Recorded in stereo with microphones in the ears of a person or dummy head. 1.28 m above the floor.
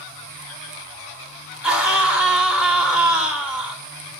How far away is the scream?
About 2 m.